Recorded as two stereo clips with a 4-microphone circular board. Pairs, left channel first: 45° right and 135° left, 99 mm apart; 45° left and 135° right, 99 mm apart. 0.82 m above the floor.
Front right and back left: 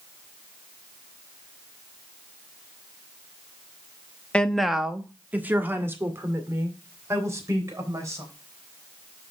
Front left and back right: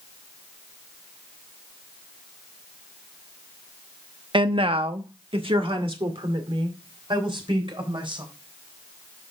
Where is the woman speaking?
120° right, 0.8 m; by 8.2 s 170° right, 4 m.